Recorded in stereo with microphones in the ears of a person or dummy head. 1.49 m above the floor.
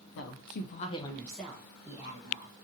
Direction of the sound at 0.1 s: 65° left (ahead or behind).